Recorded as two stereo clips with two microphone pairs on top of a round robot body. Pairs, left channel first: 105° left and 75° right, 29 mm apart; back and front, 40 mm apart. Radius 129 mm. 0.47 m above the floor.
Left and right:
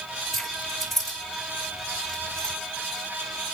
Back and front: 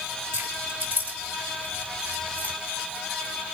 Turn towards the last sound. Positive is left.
turn(degrees=35)